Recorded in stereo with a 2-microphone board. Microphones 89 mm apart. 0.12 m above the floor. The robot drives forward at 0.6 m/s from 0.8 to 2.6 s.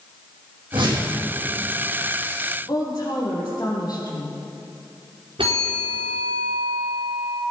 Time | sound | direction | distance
0.7 | a whoosh | 65° right (ahead or behind) | 4.5 m
2.7 | a woman speaking | 45° left (ahead or behind) | 5 m
5.4 | a bell | 80° right | 4 m